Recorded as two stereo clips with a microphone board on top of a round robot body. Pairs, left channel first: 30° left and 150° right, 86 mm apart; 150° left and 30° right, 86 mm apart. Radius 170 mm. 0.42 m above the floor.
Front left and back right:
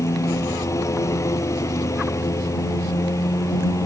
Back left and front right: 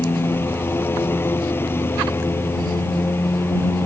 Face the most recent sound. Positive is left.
turn(degrees=85)